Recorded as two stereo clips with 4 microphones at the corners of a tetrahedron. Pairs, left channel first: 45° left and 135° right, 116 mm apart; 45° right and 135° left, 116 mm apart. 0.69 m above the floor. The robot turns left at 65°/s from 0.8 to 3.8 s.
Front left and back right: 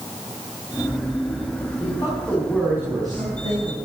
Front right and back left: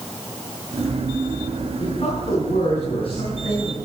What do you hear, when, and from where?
1.8 s a man speaking: 5° left, 7 m; by 3.8 s 125° right, 7 m